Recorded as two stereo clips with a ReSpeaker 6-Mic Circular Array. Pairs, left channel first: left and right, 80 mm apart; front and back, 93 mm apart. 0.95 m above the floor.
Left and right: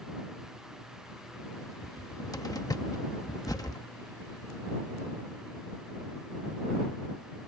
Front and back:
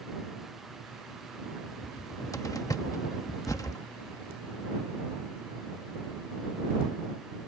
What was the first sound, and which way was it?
A cupboard door, 50° left.